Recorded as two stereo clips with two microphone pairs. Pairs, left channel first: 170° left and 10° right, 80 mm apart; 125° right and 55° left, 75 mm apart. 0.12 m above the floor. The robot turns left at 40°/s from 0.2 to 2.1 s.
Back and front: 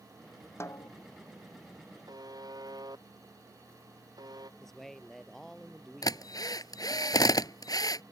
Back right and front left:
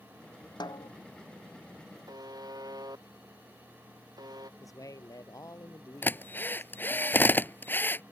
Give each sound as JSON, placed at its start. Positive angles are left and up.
{"t": 0.6, "sound": "a snare drum", "azimuth_deg": -135}
{"t": 2.1, "sound": "a buzzer", "azimuth_deg": 25}
{"t": 4.6, "sound": "a man speaking", "azimuth_deg": -100}
{"t": 6.0, "sound": "a drill", "azimuth_deg": 180}